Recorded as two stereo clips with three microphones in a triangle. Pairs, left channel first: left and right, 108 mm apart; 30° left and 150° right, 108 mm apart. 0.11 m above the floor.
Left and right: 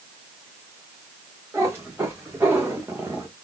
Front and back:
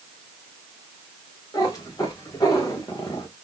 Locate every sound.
1.5 s a cat meowing: 25° right, 4 m; by 3.3 s 20° right, 2.5 m